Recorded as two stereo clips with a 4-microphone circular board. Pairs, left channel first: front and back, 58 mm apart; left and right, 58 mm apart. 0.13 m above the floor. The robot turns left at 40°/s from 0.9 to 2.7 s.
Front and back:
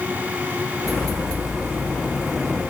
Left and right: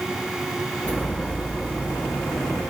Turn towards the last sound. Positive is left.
No sound to turn to.